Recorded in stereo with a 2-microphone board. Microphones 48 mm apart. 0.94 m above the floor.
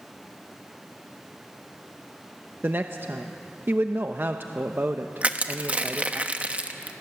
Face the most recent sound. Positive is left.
turn(degrees=-25)  # may be behind; listen again after turning